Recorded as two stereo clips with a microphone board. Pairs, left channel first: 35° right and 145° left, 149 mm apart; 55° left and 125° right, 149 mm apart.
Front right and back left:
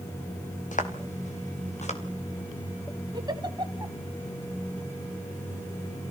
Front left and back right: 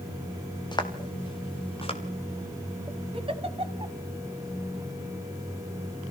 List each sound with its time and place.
0.7 s footsteps: 5° right, 3 m; by 2.0 s 5° left, 3.5 m
3.1 s a giggle: 160° right, 1.7 m